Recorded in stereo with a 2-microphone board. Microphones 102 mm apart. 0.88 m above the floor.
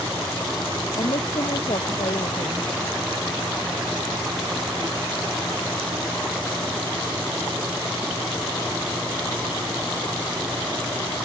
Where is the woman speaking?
70° left (ahead or behind).